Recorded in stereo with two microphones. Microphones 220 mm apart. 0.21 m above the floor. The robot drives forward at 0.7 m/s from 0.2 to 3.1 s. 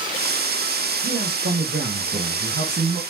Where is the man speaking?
70° right (ahead or behind), 3 m; by 3.0 s 60° right (ahead or behind), 3.5 m.